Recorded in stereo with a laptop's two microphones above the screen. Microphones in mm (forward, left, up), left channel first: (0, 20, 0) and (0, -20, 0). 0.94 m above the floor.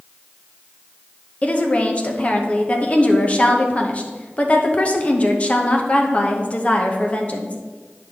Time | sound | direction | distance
1.4 | a woman speaking | 30° left (ahead or behind) | 0.8 m